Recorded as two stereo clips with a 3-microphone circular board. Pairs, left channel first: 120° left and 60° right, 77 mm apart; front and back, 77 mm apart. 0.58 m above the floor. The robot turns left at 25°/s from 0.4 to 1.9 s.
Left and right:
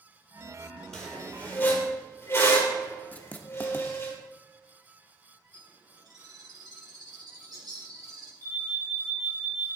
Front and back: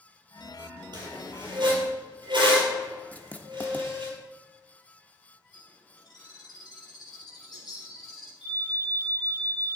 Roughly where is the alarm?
Right.